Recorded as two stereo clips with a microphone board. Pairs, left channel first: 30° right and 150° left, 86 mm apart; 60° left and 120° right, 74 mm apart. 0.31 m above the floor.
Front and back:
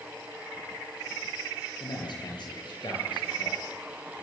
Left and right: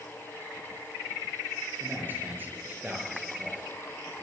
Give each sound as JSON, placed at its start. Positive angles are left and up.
{"t": 1.8, "sound": "a man speaking", "azimuth_deg": -55, "distance_m": 6.0}